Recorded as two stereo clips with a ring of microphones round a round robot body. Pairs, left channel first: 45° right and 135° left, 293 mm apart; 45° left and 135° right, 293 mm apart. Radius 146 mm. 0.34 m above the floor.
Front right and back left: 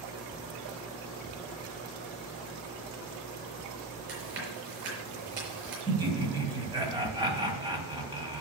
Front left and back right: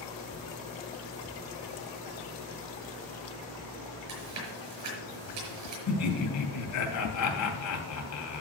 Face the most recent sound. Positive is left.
turn(degrees=60)